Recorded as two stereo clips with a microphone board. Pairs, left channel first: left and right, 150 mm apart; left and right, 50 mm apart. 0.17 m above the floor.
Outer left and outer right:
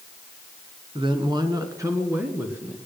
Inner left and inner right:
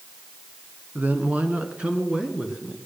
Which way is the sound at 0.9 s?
35° right (ahead or behind).